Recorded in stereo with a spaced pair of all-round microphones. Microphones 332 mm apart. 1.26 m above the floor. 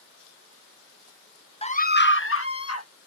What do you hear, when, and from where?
1.6 s a scream: 15° left (ahead or behind); by 2.9 s 50° left (ahead or behind)